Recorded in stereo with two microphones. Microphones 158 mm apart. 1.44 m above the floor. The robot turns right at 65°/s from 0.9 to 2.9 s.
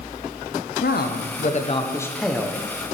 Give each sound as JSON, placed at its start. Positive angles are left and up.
{"t": 0.8, "sound": "a man speaking", "azimuth_deg": 90, "distance_m": 0.6}